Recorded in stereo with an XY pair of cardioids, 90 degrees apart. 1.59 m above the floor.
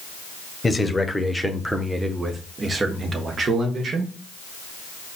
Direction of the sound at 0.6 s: 20° left.